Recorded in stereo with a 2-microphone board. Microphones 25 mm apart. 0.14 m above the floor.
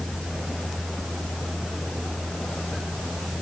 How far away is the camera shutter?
No camera shutter in this recording.